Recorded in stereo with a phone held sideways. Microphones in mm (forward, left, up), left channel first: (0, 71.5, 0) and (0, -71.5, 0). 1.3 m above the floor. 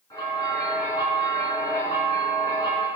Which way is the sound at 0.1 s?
25° left (ahead or behind).